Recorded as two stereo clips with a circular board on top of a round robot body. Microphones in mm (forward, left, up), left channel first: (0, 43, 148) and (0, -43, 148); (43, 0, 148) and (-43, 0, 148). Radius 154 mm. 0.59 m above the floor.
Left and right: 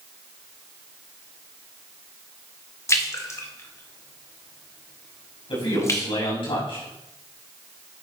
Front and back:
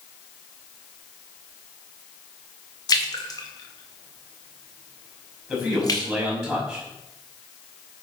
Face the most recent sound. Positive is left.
turn(degrees=95)